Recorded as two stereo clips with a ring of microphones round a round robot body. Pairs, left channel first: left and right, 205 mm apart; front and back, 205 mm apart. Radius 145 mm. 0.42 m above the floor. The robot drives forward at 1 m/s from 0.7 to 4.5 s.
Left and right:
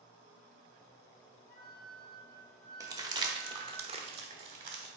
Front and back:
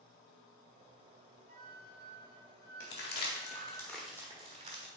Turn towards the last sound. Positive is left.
turn(degrees=-140)